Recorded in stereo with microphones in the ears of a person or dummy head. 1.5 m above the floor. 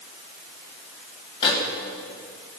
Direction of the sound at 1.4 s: 30° left (ahead or behind).